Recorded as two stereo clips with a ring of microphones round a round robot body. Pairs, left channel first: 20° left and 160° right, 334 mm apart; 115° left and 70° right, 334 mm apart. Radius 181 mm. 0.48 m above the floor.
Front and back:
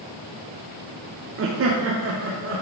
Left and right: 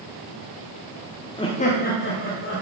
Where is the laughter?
Straight behind, 0.9 m; by 2.6 s 155° left, 1.5 m.